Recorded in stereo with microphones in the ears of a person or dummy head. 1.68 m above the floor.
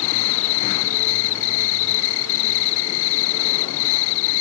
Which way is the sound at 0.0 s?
70° left (ahead or behind).